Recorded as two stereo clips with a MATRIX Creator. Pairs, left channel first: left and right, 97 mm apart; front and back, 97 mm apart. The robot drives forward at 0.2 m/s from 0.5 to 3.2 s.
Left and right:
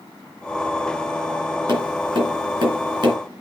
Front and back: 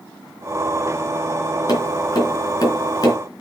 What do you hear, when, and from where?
1.7 s tapping: 45° right, 3.5 m; by 3.2 s 50° right, 3.5 m